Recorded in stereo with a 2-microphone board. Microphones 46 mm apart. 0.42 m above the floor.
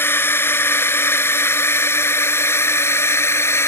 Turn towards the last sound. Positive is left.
turn(degrees=70)  # may be behind; listen again after turning